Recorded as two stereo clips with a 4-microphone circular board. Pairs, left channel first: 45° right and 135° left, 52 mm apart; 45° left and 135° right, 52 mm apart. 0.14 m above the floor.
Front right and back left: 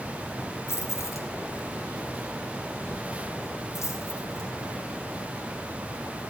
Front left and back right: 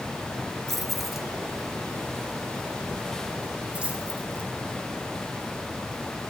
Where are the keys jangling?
40° right, 1.5 m; by 6.2 s 75° right, 6 m.